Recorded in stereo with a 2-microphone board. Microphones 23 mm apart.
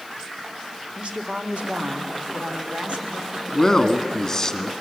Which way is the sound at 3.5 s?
20° left (ahead or behind).